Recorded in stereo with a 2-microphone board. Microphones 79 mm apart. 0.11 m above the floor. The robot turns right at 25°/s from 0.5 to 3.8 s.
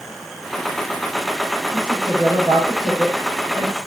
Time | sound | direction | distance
1.7 | a woman speaking | 80° right | 7.5 m